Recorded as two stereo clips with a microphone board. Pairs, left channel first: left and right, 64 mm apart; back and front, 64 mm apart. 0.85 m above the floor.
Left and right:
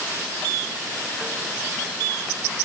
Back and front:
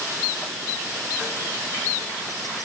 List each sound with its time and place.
Only background noise.